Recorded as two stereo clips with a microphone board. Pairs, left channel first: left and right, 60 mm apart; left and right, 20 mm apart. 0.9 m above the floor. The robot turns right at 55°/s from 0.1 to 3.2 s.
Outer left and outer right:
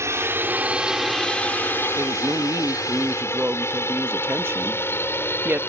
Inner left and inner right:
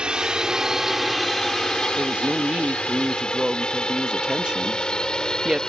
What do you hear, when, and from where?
0.0 s a drone: 50° right (ahead or behind); by 5.7 s 40° left (ahead or behind)
2.0 s a woman speaking: 115° right; by 5.6 s 50° right